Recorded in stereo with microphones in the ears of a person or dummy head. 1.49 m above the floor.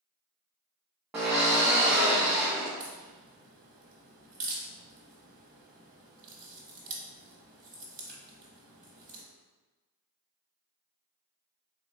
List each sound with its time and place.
1.1 s a drill: 10° right (ahead or behind), 0.5 m
2.8 s a crack: 45° right (ahead or behind), 0.8 m